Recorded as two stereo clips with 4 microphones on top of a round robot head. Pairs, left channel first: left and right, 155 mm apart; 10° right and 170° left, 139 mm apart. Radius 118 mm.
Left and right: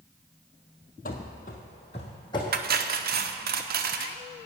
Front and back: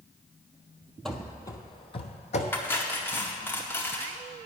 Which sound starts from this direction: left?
Running footsteps, at 1.1 s.